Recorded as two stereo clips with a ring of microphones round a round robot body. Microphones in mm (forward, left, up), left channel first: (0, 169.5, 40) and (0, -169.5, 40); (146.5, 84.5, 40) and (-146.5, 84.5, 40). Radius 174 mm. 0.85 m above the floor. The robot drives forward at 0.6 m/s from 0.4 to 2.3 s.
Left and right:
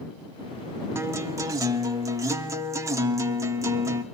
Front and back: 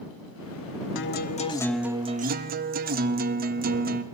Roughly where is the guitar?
Ahead.